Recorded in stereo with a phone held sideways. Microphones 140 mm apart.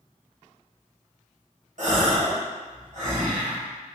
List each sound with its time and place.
1.8 s a gasp: 60° right (ahead or behind), 1.0 m